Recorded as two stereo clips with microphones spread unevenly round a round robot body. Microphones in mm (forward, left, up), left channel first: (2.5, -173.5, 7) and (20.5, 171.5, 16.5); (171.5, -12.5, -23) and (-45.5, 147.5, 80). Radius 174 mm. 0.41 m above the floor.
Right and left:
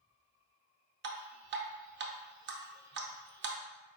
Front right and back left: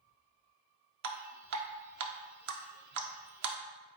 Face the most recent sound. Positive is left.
turn(degrees=125)